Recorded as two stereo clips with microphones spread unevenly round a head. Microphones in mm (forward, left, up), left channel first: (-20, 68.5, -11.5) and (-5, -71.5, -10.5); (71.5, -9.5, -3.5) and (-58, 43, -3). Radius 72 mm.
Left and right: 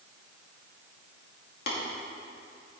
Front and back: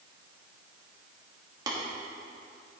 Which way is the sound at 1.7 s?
95° left.